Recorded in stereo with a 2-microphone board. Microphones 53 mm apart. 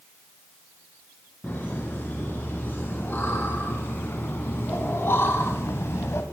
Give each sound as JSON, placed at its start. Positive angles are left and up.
{"t": 1.4, "sound": "laughter", "side_deg": 30, "distance_m": 5.0}